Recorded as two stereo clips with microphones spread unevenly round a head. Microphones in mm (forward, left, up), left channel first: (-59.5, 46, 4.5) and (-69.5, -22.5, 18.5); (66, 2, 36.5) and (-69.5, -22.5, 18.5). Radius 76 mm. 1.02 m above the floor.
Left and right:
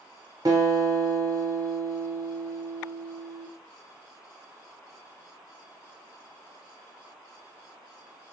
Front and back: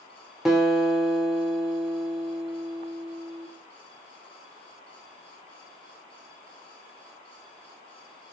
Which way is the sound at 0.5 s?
95° right.